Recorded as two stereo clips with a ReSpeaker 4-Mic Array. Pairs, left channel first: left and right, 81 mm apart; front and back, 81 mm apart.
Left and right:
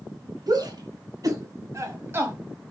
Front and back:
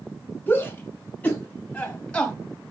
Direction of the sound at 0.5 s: 65° right.